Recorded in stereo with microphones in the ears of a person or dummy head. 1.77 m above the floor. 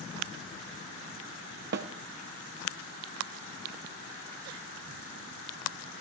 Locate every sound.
1.7 s a snare drum: 55° right (ahead or behind), 0.8 m